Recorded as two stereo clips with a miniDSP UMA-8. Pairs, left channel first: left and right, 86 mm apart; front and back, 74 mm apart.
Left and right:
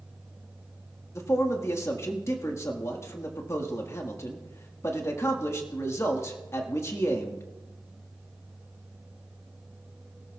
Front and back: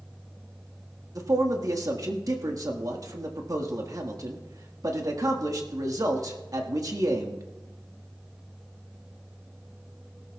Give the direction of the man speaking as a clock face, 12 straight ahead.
7 o'clock.